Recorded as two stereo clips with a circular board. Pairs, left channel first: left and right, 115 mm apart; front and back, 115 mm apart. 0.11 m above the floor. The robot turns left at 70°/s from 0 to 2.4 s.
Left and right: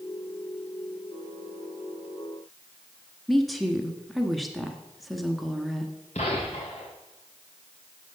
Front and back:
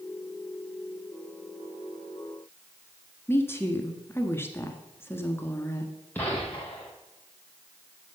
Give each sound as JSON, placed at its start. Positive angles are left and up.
{"t": 3.3, "sound": "a woman speaking", "azimuth_deg": 0, "distance_m": 1.1}
{"t": 6.2, "sound": "a gunshot", "azimuth_deg": 75, "distance_m": 3.0}